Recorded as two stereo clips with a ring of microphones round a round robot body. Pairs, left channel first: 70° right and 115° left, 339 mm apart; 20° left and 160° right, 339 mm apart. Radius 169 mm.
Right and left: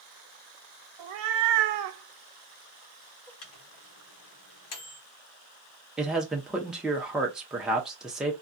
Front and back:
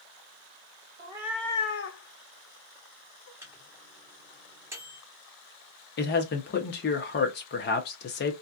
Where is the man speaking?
25° left, 0.7 m.